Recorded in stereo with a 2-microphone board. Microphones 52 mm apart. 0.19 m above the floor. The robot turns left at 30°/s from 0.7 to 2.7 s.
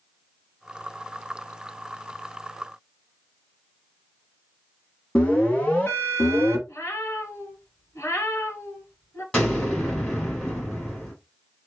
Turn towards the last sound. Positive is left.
turn(degrees=15)  # may be behind; listen again after turning